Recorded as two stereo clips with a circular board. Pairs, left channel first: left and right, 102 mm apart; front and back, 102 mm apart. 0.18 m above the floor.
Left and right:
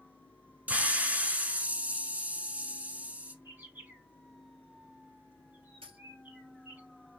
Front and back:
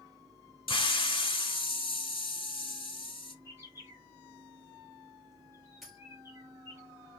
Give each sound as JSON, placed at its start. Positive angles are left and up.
{"t": 0.7, "sound": "a hiss", "azimuth_deg": -15, "distance_m": 0.6}
{"t": 3.5, "sound": "a bird", "azimuth_deg": -145, "distance_m": 1.7}
{"t": 5.8, "sound": "a dropped coin", "azimuth_deg": -90, "distance_m": 1.3}